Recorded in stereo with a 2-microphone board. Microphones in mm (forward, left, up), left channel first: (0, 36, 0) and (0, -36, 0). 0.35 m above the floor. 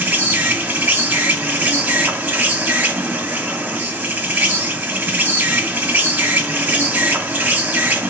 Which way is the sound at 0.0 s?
25° right (ahead or behind).